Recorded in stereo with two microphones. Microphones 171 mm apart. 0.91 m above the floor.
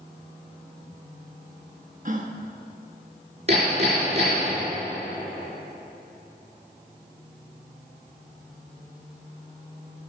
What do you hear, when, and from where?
2.0 s a gasp: 50° right (ahead or behind), 1.1 m
3.5 s hammering: 40° right (ahead or behind), 5 m